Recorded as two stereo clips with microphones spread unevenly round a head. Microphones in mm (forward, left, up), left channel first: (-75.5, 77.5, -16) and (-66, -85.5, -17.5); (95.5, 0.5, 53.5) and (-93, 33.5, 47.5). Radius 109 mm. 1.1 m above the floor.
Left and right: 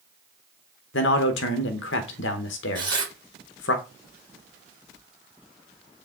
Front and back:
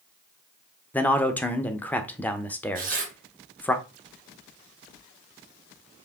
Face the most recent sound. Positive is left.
turn(degrees=-150)